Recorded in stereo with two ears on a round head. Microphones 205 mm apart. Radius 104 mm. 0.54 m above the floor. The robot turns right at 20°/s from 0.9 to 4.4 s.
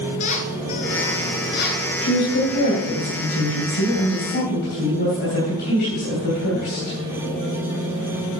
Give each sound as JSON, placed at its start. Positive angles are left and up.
{"t": 0.2, "sound": "a squeak", "side_deg": 35, "distance_m": 1.1}
{"t": 2.0, "sound": "a woman speaking", "azimuth_deg": 80, "distance_m": 3.0}